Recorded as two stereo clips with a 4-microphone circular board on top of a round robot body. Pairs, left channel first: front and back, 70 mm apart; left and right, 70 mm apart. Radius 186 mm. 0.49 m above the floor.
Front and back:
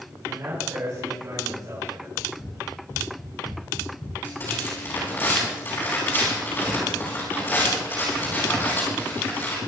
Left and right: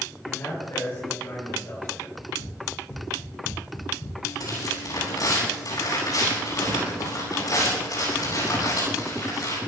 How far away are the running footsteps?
About 7 m.